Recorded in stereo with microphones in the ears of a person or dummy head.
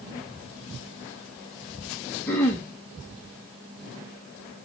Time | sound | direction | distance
2.3 | throat clearing | 10° left (ahead or behind) | 0.5 m